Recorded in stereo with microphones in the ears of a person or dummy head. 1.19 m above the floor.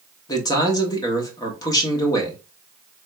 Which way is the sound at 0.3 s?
20° left (ahead or behind).